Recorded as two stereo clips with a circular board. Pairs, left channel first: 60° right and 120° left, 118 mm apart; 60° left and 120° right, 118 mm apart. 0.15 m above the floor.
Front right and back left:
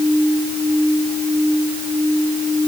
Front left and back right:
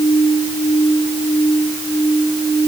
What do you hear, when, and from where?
Only background noise.